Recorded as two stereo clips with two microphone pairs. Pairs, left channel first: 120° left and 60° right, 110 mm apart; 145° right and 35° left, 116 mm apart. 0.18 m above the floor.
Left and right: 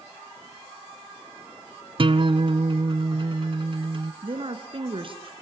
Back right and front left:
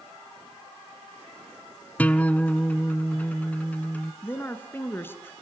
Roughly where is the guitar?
Right.